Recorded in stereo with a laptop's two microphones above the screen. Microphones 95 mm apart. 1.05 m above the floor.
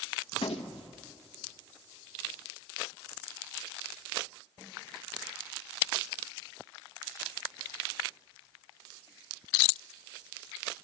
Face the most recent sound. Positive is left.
turn(degrees=70)  # may be behind; listen again after turning